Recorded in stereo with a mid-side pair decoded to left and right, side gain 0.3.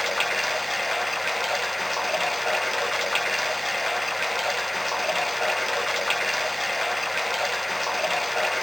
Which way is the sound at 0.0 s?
10° left.